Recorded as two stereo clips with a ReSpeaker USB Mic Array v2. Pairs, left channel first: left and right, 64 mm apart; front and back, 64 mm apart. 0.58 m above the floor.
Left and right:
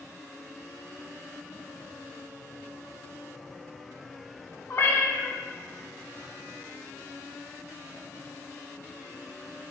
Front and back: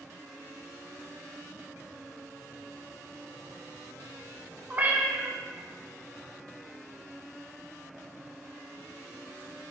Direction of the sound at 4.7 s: 120° left.